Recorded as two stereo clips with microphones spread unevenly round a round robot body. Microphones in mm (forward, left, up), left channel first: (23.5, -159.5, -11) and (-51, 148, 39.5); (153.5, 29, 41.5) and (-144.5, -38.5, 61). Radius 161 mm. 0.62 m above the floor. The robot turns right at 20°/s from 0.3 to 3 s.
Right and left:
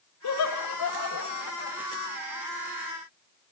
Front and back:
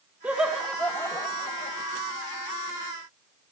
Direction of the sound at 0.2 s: 80° right.